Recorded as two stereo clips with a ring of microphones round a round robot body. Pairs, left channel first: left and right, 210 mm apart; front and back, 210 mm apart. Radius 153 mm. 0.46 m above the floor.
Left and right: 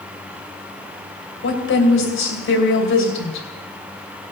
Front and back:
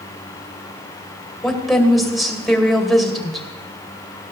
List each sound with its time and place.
1.4 s a woman speaking: 90° left, 2.5 m